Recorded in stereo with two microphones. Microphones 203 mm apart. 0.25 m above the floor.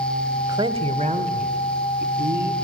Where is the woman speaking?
20° right (ahead or behind), 1.2 m; by 2.5 s 50° right (ahead or behind), 2.5 m.